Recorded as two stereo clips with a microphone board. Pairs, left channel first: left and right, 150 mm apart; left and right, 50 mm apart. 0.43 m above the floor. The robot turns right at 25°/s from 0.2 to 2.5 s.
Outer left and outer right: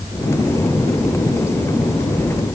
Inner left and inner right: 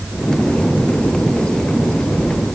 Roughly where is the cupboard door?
No cupboard door in this recording.